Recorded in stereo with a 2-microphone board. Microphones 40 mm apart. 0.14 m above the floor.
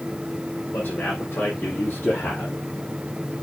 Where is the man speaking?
65° left (ahead or behind), 5.5 m; by 2.6 s 75° left (ahead or behind), 5 m.